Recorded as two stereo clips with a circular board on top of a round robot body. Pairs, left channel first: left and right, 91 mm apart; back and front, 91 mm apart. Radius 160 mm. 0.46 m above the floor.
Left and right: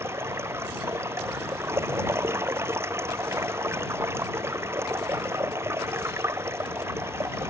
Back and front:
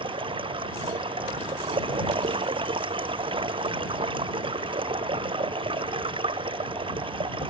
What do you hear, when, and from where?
0.0 s running water: 25° right